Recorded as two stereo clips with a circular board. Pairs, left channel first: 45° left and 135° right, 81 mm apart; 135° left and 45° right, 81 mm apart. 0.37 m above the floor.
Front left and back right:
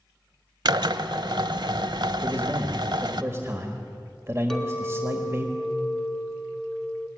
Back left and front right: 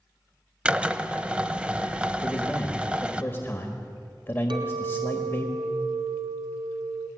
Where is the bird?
I don't hear a bird.